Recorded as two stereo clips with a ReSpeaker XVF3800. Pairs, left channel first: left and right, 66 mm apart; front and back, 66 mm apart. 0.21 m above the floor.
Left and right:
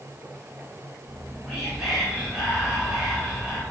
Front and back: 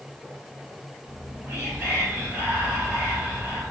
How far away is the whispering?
About 1.6 m.